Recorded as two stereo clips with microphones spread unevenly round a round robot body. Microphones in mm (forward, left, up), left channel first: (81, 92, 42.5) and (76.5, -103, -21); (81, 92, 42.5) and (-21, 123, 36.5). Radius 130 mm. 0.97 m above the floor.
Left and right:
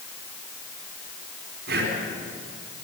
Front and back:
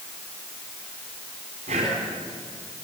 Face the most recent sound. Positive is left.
turn(degrees=-145)